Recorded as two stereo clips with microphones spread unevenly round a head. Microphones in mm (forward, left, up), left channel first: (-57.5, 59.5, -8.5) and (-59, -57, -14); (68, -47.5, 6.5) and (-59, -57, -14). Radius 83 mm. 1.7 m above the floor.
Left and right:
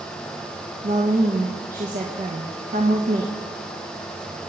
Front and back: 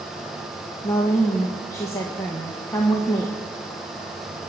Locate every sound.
0.8 s a woman speaking: 60° right, 1.6 m